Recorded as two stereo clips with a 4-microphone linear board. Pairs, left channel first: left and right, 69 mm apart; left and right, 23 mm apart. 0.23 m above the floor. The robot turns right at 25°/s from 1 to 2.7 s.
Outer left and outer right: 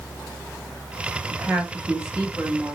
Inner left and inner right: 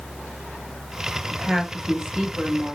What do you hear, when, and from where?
1.3 s a woman speaking: 35° right, 1.0 m; by 2.8 s straight ahead, 1.0 m